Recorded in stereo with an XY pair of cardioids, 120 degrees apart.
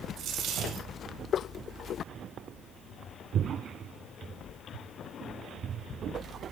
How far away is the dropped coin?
About 4 m.